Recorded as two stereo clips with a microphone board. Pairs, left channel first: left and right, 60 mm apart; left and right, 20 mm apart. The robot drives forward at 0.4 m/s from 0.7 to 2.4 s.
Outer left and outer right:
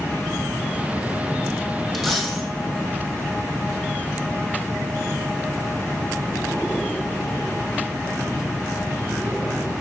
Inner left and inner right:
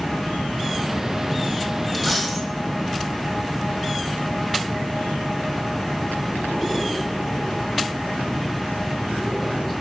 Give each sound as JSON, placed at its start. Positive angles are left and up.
{"t": 1.9, "sound": "a dropped coin", "side_deg": -5, "distance_m": 1.7}